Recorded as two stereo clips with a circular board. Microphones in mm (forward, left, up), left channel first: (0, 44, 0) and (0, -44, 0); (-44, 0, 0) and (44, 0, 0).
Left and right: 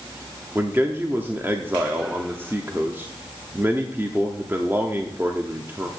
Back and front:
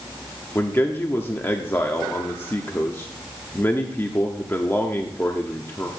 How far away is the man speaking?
About 0.9 m.